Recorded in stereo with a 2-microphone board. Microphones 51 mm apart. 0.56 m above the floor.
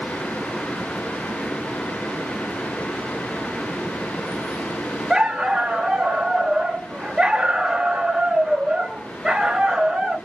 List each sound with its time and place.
5.1 s a dog barking: 15° right (ahead or behind), 0.6 m